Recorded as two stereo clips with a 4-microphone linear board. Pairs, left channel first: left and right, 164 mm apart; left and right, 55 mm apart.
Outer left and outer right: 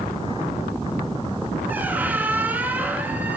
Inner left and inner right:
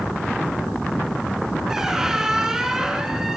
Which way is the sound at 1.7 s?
10° right (ahead or behind).